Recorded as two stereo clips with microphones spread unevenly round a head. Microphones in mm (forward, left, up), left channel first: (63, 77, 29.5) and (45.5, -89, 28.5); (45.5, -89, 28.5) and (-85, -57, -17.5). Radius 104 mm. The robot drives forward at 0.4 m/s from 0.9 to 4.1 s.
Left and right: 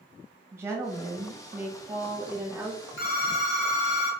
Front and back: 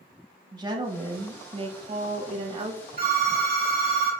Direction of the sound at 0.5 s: 170° right.